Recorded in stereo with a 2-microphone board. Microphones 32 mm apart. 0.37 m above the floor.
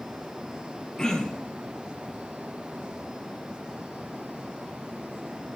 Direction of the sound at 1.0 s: 20° left (ahead or behind).